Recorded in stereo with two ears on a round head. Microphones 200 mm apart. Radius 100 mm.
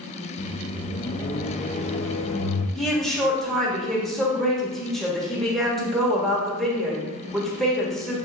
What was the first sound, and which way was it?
A microwave, 30° left (ahead or behind).